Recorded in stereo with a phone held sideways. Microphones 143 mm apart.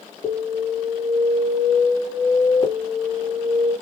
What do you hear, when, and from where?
0.2 s an alarm: 30° left (ahead or behind), 1.5 m